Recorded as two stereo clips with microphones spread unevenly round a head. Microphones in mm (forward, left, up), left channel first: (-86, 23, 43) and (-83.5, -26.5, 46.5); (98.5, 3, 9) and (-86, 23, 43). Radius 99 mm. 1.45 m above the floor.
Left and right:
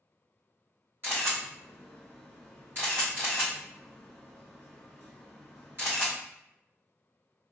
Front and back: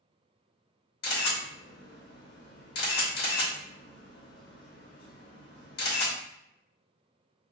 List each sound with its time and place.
1.0 s a camera shutter: 35° right, 1.2 m